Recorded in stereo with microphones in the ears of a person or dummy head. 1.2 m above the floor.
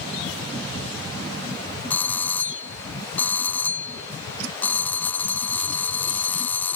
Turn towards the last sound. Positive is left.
turn(degrees=10)  # may be behind; listen again after turning